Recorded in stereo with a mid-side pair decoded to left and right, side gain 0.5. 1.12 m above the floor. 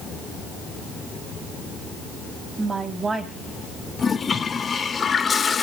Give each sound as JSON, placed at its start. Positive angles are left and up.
{"t": 2.6, "sound": "a woman speaking", "azimuth_deg": -30, "distance_m": 7.5}
{"t": 4.0, "sound": "a toilet flushing", "azimuth_deg": 35, "distance_m": 1.9}